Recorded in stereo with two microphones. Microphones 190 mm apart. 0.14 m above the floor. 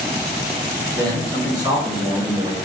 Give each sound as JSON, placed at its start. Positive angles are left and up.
{"t": 0.9, "sound": "a man speaking", "side_deg": -20, "distance_m": 1.3}